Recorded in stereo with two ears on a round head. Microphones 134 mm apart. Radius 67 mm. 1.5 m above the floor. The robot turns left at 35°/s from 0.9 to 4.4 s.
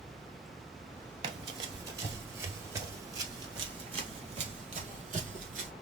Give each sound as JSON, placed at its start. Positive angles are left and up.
{"t": 1.2, "sound": "running footsteps", "side_deg": -30, "distance_m": 1.7}